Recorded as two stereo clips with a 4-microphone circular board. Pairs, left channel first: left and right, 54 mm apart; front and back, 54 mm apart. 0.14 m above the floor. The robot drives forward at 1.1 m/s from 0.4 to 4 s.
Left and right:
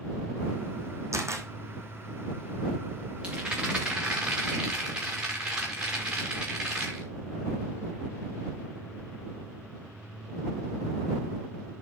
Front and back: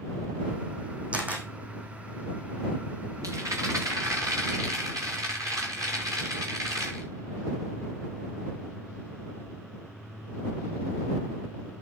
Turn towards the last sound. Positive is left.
turn(degrees=-165)